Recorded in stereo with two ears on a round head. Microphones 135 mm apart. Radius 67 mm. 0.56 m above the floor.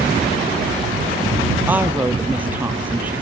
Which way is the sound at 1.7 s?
10° right (ahead or behind).